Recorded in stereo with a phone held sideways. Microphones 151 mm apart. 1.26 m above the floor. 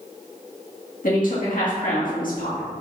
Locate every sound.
1.0 s a woman speaking: 65° left (ahead or behind), 2 m